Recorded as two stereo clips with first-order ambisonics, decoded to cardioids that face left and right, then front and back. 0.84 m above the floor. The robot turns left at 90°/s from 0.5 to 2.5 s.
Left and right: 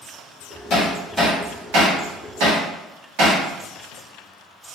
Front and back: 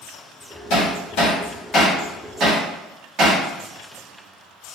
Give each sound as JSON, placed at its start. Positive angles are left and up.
{"t": 0.7, "sound": "hammering", "azimuth_deg": 30, "distance_m": 1.7}